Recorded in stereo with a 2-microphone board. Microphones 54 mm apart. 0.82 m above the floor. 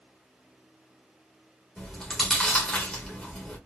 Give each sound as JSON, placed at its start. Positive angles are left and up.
{"t": 1.8, "sound": "chewing", "side_deg": 10, "distance_m": 1.6}